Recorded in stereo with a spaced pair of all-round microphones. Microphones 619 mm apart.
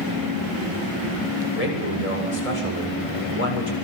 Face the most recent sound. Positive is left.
turn(degrees=90)